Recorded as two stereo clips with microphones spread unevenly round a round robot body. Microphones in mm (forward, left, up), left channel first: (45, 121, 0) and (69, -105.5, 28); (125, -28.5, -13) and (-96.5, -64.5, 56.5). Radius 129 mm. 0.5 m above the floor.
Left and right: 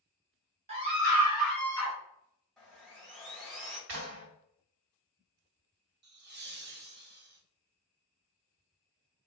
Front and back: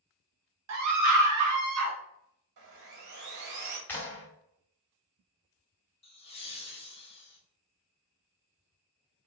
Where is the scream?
150° right, 1.3 m; by 2.0 s 160° left, 1.2 m.